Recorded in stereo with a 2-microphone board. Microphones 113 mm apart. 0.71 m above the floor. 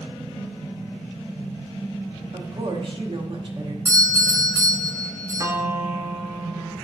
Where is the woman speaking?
50° right (ahead or behind), 0.8 m.